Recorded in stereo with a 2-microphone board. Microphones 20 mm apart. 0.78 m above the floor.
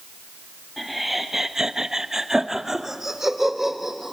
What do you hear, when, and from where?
0.8 s laughter: centre (ahead or behind), 1.3 m; by 4.1 s 20° right (ahead or behind), 4 m